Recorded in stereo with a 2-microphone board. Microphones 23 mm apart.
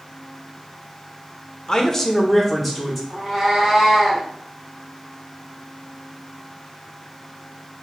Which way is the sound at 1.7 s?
30° left (ahead or behind).